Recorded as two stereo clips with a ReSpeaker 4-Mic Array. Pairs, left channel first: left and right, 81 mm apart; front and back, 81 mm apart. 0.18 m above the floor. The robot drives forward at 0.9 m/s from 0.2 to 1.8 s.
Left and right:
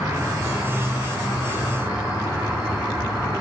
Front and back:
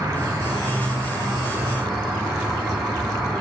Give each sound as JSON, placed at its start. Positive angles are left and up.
{"t": 0.0, "sound": "an insect", "azimuth_deg": -140, "distance_m": 1.0}